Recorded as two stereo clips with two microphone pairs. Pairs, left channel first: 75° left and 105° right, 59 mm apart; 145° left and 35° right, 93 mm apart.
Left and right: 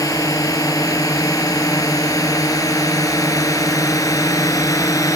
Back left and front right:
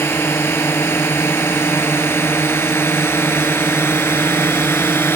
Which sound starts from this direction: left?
A drone, at 0.0 s.